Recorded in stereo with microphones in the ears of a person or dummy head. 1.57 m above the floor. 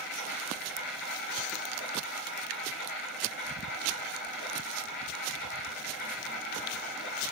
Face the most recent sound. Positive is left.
turn(degrees=50)  # may be behind; listen again after turning